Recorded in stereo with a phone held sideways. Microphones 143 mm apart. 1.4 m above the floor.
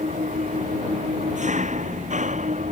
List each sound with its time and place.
0.0 s an engine running: 55° right (ahead or behind)